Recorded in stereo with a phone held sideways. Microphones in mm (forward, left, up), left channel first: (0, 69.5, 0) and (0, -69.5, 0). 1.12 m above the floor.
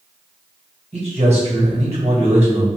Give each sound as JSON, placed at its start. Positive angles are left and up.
{"t": 0.9, "sound": "a man speaking", "side_deg": -50, "distance_m": 1.5}